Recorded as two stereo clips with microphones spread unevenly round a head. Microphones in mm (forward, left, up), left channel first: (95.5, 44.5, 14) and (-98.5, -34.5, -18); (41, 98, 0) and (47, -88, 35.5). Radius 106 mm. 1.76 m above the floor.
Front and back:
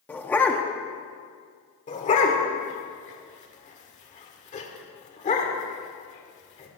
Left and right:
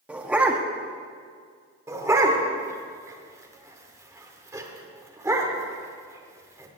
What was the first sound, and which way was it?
A dog barking, 35° right.